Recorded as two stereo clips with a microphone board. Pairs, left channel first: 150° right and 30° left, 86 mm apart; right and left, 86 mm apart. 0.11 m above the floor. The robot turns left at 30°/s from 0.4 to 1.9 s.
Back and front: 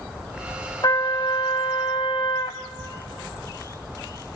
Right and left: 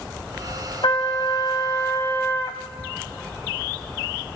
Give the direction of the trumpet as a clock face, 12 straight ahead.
4 o'clock.